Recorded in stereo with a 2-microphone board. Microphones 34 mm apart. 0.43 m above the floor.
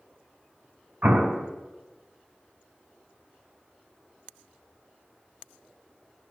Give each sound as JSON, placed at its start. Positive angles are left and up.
{"t": 1.0, "sound": "an explosion", "side_deg": -60, "distance_m": 2.0}